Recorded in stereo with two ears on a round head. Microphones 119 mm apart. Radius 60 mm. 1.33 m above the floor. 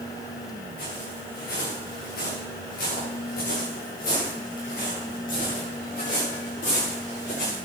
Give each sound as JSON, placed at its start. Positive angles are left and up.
{"t": 0.8, "sound": "footsteps", "side_deg": 80, "distance_m": 7.0}